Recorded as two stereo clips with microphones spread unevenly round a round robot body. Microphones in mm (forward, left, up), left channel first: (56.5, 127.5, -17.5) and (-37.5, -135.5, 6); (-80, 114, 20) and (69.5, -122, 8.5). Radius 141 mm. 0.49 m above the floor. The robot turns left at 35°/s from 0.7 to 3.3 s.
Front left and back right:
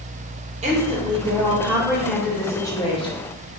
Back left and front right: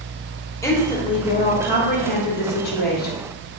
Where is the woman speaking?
165° right, 0.8 m; by 3.2 s 110° left, 0.8 m.